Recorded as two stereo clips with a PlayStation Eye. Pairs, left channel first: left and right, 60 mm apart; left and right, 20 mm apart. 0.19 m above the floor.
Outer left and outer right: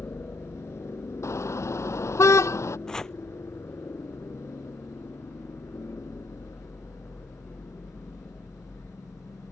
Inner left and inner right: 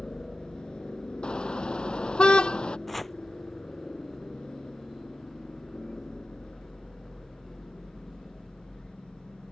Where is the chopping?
10° left (ahead or behind).